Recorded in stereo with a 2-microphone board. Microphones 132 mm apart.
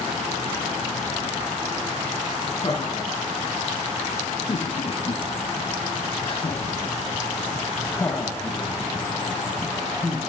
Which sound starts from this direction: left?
Laughter, at 2.6 s.